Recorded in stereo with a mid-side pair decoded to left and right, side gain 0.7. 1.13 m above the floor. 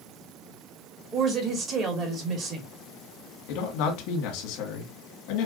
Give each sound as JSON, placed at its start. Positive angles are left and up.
{"t": 1.1, "sound": "a woman speaking", "azimuth_deg": -40, "distance_m": 1.9}
{"t": 3.5, "sound": "a man speaking", "azimuth_deg": 70, "distance_m": 1.8}